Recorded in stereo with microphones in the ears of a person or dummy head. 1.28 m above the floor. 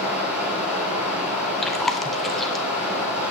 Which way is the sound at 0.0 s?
10° right (ahead or behind).